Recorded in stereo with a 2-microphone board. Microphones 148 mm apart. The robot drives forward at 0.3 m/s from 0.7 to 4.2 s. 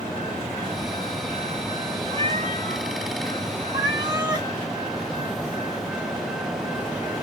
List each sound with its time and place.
2.1 s a cat meowing: 40° right (ahead or behind), 1.0 m; by 4.5 s 25° right (ahead or behind), 1.5 m